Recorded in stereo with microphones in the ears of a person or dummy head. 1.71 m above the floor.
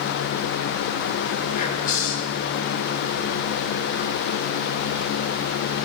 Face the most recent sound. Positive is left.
turn(degrees=50)  # may be behind; listen again after turning